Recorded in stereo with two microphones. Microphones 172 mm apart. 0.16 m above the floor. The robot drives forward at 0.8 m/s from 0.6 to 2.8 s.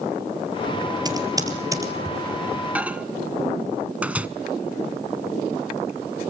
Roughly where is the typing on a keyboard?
Right.